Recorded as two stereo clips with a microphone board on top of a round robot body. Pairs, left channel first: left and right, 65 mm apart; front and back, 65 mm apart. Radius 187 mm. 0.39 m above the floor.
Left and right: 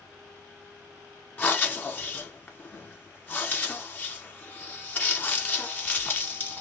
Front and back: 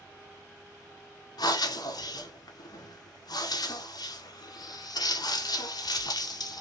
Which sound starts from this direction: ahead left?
Breathing, at 1.4 s.